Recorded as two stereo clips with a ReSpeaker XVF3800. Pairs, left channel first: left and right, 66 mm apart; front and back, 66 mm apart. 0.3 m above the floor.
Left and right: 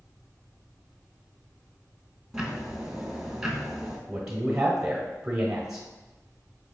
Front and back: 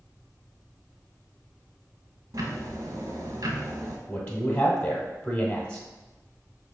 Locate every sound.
2.3 s ticking: 170° right, 0.7 m
4.1 s a man speaking: 15° right, 1.0 m